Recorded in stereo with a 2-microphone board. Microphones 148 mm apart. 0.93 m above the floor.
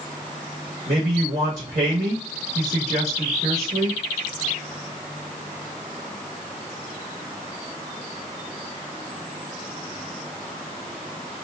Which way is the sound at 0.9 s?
55° right (ahead or behind).